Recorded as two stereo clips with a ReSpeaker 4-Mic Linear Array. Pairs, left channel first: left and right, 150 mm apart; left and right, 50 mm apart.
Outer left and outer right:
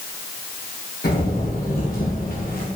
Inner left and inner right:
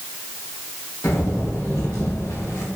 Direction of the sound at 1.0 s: 80° left.